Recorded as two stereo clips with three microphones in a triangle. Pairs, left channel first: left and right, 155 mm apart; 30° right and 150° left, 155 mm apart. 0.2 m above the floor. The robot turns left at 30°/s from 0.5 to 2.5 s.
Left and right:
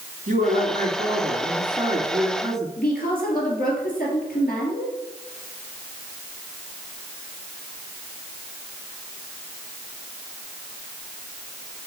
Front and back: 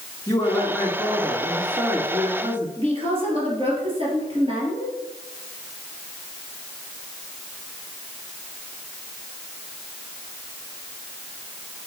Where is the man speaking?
95° right, 2.5 m; by 2.7 s 155° right, 2.5 m.